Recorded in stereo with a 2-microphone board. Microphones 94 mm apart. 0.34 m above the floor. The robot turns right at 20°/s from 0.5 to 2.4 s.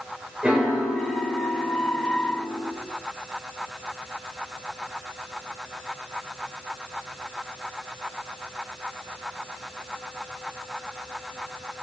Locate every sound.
0.4 s a piano: 20° right, 0.5 m; by 2.7 s 15° left, 0.5 m